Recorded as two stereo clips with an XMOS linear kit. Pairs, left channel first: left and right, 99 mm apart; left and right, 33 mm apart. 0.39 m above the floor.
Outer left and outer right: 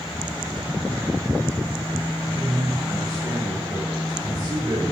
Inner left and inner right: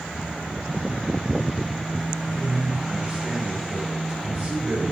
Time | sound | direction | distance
2.3 | a man speaking | 30° right (ahead or behind) | 1.8 m